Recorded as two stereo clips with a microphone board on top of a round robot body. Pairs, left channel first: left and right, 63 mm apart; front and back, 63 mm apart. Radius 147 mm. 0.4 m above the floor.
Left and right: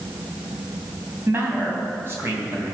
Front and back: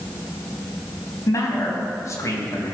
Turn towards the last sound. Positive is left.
turn(degrees=-35)